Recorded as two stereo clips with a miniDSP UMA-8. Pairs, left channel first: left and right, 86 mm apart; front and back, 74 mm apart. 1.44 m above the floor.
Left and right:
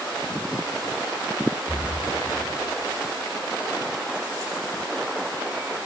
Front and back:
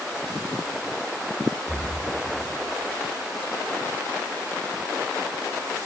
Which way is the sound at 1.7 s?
160° right.